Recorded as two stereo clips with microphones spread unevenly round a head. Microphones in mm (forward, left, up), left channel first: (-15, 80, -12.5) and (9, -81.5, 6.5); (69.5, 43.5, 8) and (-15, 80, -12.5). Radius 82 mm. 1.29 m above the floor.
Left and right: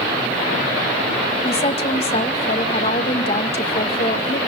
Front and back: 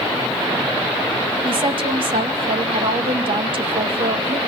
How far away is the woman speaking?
About 2 m.